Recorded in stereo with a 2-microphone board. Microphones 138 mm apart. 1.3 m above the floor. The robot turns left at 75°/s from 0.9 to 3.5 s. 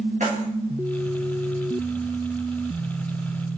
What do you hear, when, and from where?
0.2 s keys jangling: 60° right (ahead or behind), 1.3 m